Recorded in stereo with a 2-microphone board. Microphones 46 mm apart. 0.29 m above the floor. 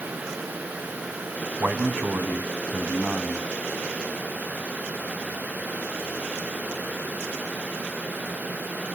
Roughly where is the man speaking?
Right.